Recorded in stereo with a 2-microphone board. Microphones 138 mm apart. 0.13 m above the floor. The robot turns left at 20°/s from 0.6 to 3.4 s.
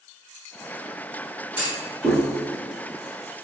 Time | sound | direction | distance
1.6 | a clunk | 15° right (ahead or behind) | 2.5 m